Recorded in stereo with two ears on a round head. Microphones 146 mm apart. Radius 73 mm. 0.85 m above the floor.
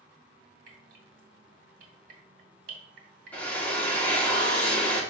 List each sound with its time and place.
0.7 s dripping: 55° right (ahead or behind), 2.5 m
3.3 s a drill: 10° left (ahead or behind), 1.4 m